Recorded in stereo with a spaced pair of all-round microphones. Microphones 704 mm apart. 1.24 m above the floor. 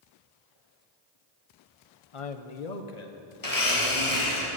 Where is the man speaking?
45° left (ahead or behind), 0.7 m; by 3.2 s 70° left (ahead or behind), 1.3 m.